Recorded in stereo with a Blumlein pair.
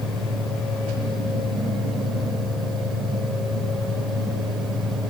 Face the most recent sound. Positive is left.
turn(degrees=-5)